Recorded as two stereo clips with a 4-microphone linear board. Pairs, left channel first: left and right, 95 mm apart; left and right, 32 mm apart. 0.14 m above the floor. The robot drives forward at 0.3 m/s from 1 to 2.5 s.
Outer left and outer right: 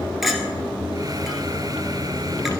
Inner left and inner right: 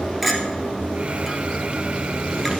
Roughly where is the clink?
Centre.